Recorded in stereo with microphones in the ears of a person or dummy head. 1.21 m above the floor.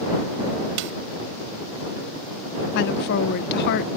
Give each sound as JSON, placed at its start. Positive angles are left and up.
{"t": 0.8, "sound": "a snare drum", "side_deg": -65}
{"t": 2.8, "sound": "a woman speaking", "side_deg": 60}